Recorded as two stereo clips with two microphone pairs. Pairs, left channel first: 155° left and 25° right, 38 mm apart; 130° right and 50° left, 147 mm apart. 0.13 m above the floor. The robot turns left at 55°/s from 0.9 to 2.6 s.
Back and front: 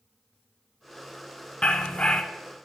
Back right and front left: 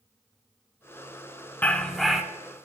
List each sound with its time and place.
1.6 s a dog barking: 165° left, 0.6 m; by 2.2 s 130° left, 0.6 m